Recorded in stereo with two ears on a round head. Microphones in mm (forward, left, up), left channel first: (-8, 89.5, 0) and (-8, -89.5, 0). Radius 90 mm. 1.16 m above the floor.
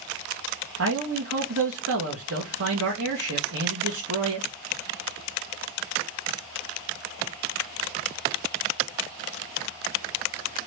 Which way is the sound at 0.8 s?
75° right (ahead or behind).